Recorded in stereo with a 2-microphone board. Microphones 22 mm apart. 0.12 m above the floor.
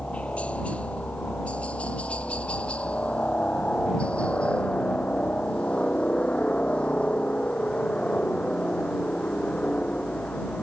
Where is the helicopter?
60° left (ahead or behind); by 10.6 s 45° left (ahead or behind).